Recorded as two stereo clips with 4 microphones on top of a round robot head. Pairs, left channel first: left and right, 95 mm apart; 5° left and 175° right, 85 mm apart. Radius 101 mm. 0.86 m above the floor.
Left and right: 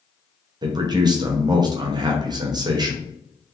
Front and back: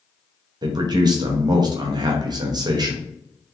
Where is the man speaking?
135° right, 0.8 m.